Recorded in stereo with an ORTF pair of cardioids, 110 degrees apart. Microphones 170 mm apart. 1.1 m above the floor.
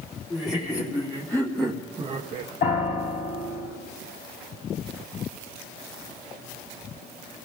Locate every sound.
0.3 s laughter: 30° left, 3 m; by 2.5 s 70° right, 1.0 m
2.6 s a piano: 65° left, 4 m